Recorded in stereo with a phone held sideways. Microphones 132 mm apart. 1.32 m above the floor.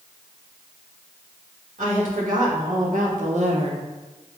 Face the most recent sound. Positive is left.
turn(degrees=-35)  # may be behind; listen again after turning